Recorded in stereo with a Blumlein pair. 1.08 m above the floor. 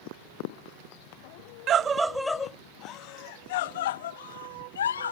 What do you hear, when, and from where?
1.7 s a scream: 30° right; by 5.1 s 65° left